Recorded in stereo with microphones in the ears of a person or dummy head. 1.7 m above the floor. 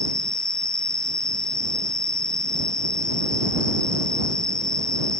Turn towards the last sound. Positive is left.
turn(degrees=5)  # may be behind; listen again after turning